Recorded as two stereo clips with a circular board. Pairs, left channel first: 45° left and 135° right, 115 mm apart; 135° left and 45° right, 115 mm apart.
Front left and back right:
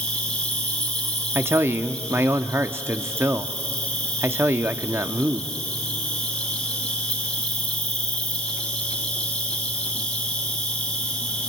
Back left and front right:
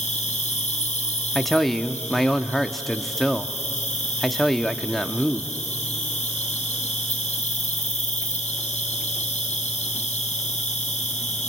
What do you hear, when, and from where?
0.0 s an insect: 125° left, 3.5 m
1.4 s a man speaking: 140° right, 0.9 m